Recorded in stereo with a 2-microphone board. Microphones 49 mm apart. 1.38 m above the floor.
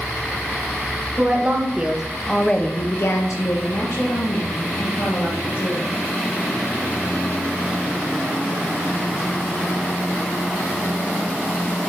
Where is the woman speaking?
30° right (ahead or behind), 1.9 m; by 5.8 s 65° left (ahead or behind), 3.5 m.